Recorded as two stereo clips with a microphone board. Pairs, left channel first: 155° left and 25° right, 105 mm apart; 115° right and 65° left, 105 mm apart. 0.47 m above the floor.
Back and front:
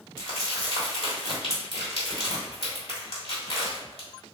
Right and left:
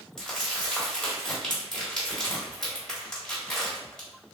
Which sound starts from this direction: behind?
Crumpling, at 0.2 s.